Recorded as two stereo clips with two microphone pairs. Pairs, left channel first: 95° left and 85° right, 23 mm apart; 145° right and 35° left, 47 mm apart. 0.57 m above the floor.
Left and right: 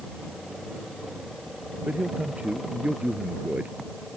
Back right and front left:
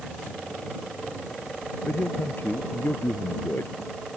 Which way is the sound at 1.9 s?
110° right.